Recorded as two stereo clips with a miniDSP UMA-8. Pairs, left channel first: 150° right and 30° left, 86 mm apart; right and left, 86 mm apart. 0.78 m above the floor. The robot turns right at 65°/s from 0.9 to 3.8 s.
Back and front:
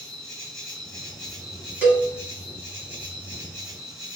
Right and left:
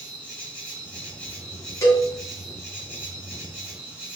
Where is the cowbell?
40° right, 1.2 m; by 2.1 s 25° right, 1.2 m.